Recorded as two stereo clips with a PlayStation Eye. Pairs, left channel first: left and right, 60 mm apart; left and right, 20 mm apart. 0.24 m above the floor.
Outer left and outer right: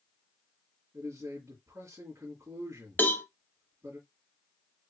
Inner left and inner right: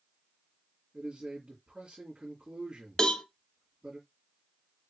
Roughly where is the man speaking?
Right.